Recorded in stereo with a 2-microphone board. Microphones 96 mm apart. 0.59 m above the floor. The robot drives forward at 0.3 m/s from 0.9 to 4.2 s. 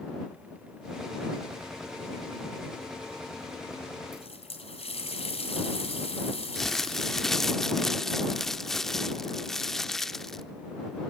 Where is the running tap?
75° left (ahead or behind), 3 m.